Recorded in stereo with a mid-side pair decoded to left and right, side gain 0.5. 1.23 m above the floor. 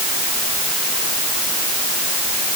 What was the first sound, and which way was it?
Only background noise.